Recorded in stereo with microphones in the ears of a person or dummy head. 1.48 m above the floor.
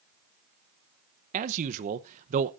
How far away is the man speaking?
About 0.9 m.